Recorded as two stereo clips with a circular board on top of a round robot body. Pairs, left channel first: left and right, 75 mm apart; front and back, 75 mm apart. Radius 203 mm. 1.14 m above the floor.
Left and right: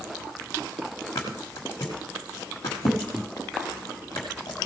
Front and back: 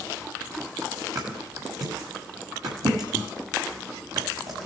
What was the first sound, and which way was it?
A thud, 140° left.